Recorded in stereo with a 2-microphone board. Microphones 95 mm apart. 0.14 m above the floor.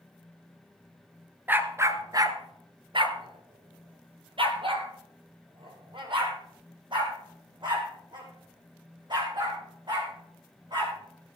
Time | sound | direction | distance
1.5 | a dog barking | 20° right (ahead or behind) | 0.9 m